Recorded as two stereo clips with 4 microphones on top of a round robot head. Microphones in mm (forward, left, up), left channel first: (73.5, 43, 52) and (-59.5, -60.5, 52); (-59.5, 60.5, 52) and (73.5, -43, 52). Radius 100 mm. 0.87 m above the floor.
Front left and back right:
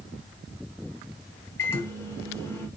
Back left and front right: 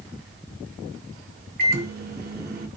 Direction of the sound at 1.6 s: 35° right.